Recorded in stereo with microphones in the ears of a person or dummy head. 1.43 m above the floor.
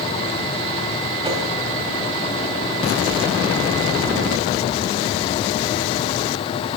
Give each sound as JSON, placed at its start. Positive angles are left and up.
{"t": 1.2, "sound": "a whoosh", "side_deg": -25, "distance_m": 2.0}